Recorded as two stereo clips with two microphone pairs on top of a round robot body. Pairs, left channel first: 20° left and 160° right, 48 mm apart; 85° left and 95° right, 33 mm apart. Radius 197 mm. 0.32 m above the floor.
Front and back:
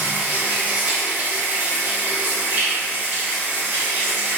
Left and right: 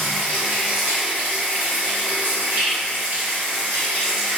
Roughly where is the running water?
Right.